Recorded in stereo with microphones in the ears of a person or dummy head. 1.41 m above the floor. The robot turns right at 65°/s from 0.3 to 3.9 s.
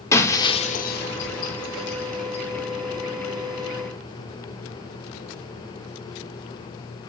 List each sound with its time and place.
0.1 s breaking glass: 15° left (ahead or behind), 2.5 m; by 2.5 s 25° left (ahead or behind), 2.5 m